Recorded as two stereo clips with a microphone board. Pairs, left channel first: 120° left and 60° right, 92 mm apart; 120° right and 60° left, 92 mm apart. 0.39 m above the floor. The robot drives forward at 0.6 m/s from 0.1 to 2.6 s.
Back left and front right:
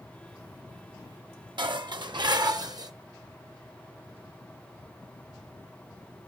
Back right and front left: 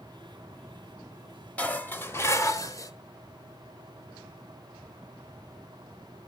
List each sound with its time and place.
1.6 s dishes clattering: 50° right, 1.3 m; by 2.9 s 80° right, 1.0 m